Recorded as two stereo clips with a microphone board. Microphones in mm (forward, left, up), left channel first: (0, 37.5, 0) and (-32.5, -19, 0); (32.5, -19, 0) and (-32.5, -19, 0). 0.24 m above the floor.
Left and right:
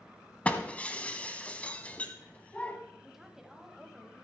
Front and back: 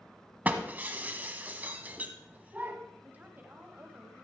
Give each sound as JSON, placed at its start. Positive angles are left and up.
{"t": 0.5, "sound": "breaking glass", "azimuth_deg": 125, "distance_m": 0.9}
{"t": 3.0, "sound": "a woman speaking", "azimuth_deg": 160, "distance_m": 1.3}